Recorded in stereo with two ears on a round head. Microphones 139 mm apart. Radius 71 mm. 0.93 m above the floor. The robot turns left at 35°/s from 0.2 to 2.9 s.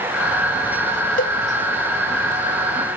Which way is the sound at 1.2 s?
55° left (ahead or behind).